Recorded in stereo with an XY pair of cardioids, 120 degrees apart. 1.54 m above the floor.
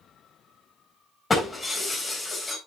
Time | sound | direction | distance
1.3 | breaking glass | 20° left | 3.5 m